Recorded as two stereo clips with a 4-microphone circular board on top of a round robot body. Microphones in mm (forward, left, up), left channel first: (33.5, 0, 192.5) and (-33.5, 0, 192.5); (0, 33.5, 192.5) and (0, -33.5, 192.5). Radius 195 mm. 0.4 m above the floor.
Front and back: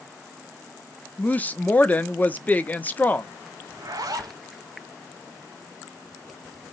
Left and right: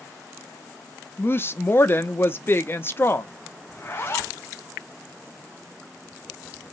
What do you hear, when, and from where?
1.2 s a woman speaking: 55° left, 1.2 m
3.7 s a zipper: 150° left, 0.8 m